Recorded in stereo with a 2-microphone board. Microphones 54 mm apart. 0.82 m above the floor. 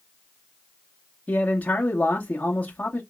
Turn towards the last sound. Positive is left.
turn(degrees=30)  # may be behind; listen again after turning